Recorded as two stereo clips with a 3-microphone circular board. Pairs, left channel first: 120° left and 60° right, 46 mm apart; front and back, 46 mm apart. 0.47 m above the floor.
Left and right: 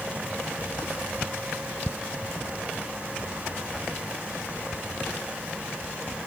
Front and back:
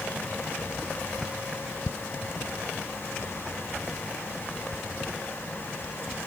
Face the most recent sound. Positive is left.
No sound to turn to.